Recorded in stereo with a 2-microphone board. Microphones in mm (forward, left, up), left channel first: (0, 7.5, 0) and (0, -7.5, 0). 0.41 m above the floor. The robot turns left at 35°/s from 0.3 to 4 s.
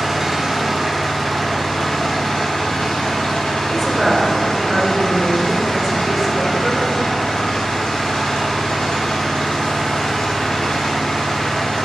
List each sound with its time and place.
0.0 s an engine running: 165° right, 1.9 m; by 11.9 s 65° left, 1.9 m
3.7 s a woman speaking: 10° right (ahead or behind), 1.0 m; by 6.8 s 15° right (ahead or behind), 1.0 m